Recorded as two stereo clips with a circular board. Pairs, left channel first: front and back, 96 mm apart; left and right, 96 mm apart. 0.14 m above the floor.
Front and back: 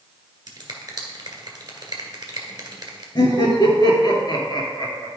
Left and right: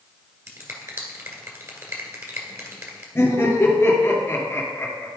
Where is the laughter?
30° left, 2.5 m.